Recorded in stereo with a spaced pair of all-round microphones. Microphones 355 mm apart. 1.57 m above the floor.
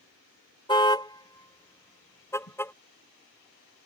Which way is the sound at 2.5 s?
40° left (ahead or behind).